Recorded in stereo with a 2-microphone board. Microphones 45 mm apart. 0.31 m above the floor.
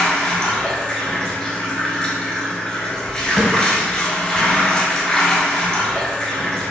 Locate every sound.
0.0 s running water: 20° left (ahead or behind), 1.1 m
3.4 s a thud: 15° left (ahead or behind), 0.8 m